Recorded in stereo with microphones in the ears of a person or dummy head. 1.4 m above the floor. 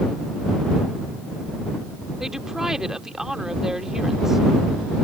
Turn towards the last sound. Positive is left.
turn(degrees=-5)  # may be behind; listen again after turning